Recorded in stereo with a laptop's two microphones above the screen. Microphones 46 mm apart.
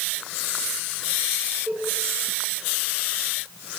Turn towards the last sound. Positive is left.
turn(degrees=-50)  # may be behind; listen again after turning